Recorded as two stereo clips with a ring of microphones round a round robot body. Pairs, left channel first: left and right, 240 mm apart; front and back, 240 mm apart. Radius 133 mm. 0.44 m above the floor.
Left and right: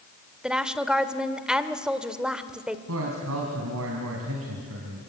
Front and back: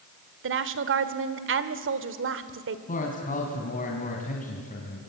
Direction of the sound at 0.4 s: 175° right.